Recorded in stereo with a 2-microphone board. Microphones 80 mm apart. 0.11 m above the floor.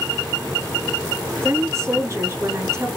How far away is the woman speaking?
About 1.3 m.